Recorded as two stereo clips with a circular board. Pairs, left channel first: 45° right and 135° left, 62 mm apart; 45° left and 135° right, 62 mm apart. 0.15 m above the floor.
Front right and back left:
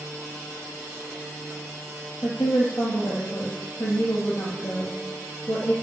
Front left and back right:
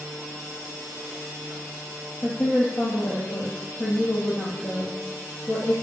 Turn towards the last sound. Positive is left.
turn(degrees=0)